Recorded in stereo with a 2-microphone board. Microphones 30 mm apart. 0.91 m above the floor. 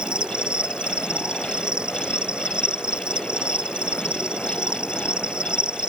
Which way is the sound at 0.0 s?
30° right (ahead or behind).